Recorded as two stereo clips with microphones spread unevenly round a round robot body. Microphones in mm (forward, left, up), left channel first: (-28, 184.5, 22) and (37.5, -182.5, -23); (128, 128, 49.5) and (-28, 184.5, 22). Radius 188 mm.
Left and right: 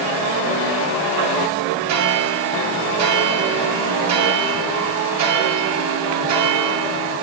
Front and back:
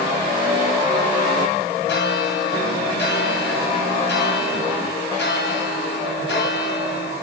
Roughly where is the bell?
Ahead right.